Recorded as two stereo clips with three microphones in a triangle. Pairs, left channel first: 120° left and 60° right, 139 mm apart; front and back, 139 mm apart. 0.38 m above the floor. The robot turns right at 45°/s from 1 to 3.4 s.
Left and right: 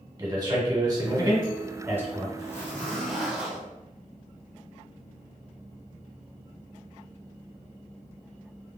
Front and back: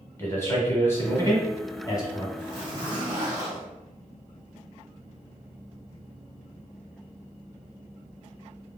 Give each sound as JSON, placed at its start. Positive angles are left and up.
{"t": 0.2, "sound": "a man speaking", "azimuth_deg": -50, "distance_m": 0.9}
{"t": 2.4, "sound": "a zipper", "azimuth_deg": 170, "distance_m": 0.9}